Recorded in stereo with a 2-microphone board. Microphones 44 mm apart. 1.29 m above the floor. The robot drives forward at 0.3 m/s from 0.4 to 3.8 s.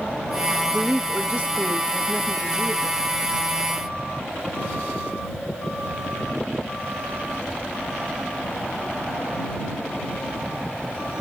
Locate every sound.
0.7 s a woman speaking: 25° right (ahead or behind), 1.9 m; by 3.0 s 20° right (ahead or behind), 2.5 m